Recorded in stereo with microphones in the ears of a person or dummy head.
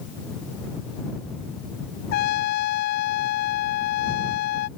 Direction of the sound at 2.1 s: 55° left (ahead or behind).